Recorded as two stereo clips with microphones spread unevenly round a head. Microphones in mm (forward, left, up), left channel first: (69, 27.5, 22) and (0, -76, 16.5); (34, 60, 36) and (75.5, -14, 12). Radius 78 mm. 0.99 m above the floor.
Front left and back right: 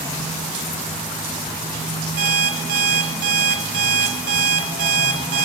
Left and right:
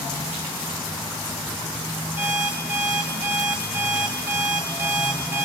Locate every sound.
2.2 s an alarm clock: 140° right, 0.9 m